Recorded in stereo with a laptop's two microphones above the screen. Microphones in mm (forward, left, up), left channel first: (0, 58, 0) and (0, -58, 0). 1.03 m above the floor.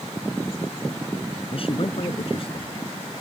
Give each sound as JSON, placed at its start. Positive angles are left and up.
{"t": 1.5, "sound": "a man speaking", "side_deg": 50}